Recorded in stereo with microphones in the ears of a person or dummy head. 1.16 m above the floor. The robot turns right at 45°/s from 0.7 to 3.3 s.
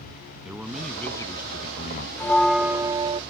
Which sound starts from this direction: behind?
A bell, at 2.2 s.